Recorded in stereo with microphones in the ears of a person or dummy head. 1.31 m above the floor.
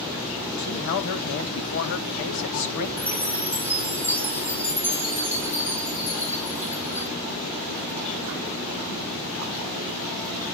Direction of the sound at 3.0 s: 15° left (ahead or behind).